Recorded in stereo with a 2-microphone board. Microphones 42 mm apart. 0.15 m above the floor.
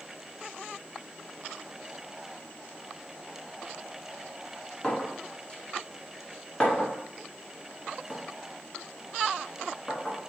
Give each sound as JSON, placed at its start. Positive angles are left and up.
{"t": 4.8, "sound": "a clink", "side_deg": 20, "distance_m": 0.9}